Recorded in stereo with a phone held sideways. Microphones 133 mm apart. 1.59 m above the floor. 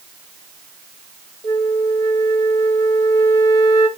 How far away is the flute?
About 1.1 m.